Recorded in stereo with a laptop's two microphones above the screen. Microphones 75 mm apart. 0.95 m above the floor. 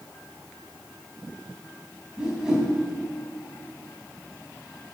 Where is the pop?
I don't hear a pop.